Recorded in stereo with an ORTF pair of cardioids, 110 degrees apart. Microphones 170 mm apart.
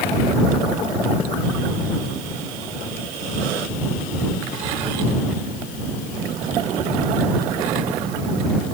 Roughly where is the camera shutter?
I don't hear a camera shutter.